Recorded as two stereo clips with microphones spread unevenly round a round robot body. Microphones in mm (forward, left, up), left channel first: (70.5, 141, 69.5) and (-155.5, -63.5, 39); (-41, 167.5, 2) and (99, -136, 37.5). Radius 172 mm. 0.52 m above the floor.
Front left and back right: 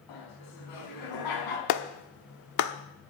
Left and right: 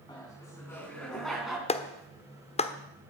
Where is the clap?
50° left, 1.1 m.